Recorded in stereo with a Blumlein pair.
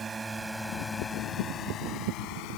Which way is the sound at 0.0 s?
15° right.